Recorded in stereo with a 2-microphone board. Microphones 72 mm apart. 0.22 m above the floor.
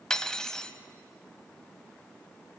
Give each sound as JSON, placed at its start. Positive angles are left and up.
{"t": 0.1, "sound": "cutlery clinking", "side_deg": 10, "distance_m": 0.5}